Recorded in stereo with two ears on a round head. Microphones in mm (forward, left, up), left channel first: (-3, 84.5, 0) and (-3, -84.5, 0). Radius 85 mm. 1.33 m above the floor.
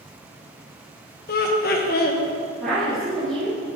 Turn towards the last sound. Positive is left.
turn(degrees=5)  # may be behind; listen again after turning